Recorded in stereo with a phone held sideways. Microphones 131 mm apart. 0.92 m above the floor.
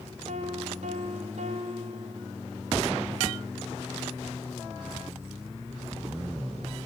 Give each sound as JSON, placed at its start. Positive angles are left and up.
{"t": 0.3, "sound": "a piano", "side_deg": -70, "distance_m": 1.8}